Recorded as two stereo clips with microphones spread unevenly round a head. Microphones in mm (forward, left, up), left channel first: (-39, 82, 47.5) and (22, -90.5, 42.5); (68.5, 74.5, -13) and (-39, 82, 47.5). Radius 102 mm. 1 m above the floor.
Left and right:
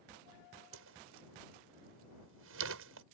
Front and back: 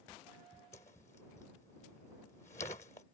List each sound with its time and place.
0.7 s a whoosh: 70° right